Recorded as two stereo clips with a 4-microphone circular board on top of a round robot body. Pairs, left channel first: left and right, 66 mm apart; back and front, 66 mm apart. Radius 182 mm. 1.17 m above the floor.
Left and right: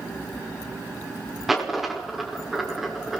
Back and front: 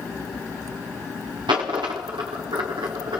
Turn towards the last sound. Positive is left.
turn(degrees=-5)